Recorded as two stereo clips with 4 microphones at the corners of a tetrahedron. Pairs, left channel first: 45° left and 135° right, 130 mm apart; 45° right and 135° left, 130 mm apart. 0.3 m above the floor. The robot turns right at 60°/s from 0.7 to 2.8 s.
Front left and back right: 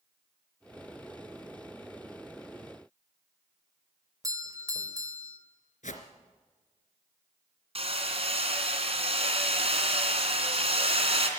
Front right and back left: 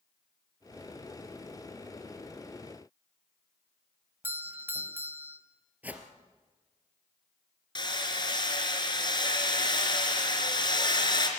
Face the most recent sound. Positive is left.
turn(degrees=-100)